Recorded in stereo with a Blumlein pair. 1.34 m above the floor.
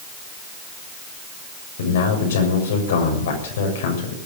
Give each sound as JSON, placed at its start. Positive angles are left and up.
{"t": 1.8, "sound": "a man speaking", "azimuth_deg": 60, "distance_m": 6.5}